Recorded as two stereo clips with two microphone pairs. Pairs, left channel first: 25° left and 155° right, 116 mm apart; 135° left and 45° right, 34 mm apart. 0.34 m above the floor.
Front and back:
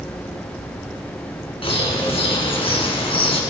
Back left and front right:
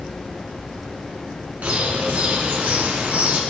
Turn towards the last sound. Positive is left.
turn(degrees=-10)